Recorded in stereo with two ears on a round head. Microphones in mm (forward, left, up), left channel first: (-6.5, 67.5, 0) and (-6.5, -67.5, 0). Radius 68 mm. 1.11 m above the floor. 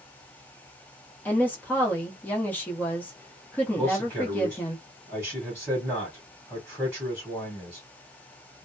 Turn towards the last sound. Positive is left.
turn(degrees=-10)  # may be behind; listen again after turning